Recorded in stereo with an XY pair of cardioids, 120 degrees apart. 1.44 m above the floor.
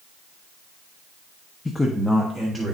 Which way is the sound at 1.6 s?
20° left.